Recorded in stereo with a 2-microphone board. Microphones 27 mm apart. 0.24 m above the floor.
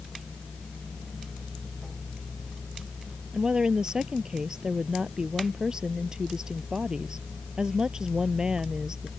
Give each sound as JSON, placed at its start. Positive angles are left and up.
{"t": 3.3, "sound": "a woman speaking", "side_deg": -25}